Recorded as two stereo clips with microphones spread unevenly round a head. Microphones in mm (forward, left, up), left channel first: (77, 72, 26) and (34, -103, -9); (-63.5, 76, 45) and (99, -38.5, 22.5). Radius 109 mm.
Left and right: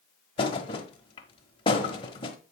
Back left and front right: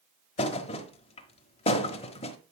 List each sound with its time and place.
0.4 s a thud: 110° left, 1.2 m